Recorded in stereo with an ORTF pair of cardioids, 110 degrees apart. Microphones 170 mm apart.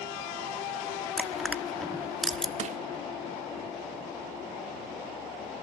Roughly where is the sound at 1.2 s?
Ahead.